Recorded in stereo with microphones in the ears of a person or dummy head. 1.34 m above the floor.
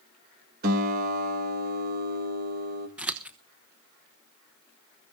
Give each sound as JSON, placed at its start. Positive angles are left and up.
{"t": 0.6, "sound": "a guitar", "side_deg": -45, "distance_m": 1.4}
{"t": 3.0, "sound": "scissors", "side_deg": -10, "distance_m": 0.8}